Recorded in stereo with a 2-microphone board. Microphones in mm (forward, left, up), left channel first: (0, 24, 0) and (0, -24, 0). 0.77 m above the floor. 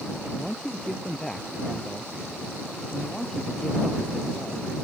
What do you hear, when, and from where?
0.3 s a man speaking: 5° left (ahead or behind)